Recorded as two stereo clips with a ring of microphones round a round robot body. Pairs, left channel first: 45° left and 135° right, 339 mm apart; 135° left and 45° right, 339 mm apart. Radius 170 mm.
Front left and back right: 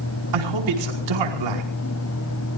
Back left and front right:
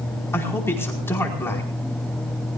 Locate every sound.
0.3 s a man speaking: 140° right, 5 m